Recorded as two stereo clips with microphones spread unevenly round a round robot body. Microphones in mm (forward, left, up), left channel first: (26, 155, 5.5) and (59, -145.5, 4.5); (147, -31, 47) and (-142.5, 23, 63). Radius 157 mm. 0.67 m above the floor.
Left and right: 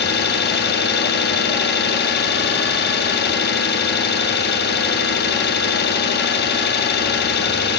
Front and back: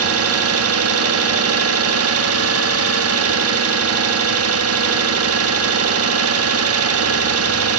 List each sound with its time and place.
0.0 s an engine running: 145° left, 1.2 m